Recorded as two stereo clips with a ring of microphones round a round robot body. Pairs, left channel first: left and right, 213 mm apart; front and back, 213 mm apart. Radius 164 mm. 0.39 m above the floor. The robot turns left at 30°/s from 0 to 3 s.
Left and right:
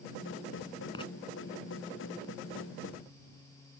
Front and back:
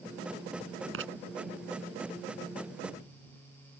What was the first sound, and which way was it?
Writing, 165° left.